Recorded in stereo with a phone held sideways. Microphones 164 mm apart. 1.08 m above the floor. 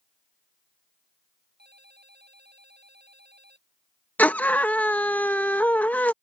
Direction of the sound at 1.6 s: 80° right.